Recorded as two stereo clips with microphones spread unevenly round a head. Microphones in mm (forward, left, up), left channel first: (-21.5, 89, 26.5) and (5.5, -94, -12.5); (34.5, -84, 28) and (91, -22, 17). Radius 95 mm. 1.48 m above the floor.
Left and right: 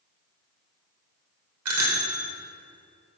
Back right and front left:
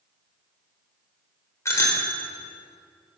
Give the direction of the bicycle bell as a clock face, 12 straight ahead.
3 o'clock.